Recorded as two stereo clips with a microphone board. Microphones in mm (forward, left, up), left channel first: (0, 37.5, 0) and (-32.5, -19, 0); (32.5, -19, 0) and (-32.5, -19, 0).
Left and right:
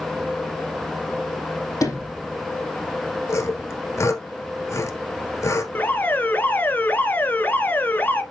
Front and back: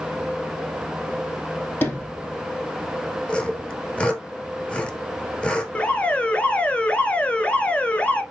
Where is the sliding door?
50° left, 4.5 m.